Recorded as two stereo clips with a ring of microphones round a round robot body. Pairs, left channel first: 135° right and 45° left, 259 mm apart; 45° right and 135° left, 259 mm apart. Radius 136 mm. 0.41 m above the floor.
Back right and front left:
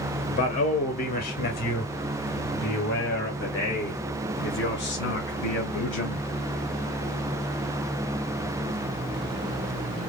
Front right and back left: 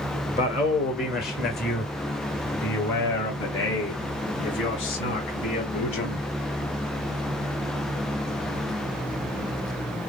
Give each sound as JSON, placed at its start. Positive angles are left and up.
{"t": 0.3, "sound": "a man speaking", "azimuth_deg": -90, "distance_m": 1.4}